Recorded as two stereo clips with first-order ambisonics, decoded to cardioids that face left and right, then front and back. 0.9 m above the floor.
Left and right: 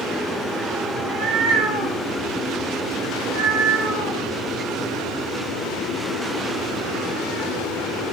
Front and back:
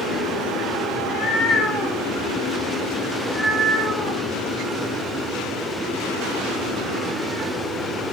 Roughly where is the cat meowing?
Ahead right.